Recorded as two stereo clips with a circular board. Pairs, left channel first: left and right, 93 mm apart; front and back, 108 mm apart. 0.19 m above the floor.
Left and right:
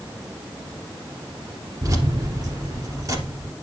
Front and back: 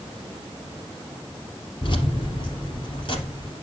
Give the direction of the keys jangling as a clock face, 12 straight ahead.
1 o'clock.